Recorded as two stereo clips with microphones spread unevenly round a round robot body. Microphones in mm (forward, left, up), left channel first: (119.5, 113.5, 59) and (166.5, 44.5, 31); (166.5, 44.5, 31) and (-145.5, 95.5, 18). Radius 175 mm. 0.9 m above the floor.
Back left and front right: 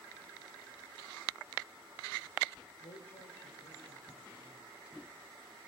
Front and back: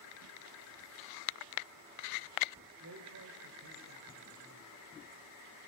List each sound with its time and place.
2.8 s a man speaking: 135° left, 3.5 m; by 4.7 s 140° left, 6 m